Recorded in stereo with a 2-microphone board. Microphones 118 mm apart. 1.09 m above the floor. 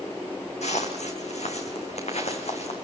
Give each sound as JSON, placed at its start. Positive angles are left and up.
{"t": 0.6, "sound": "footsteps", "side_deg": 70, "distance_m": 3.5}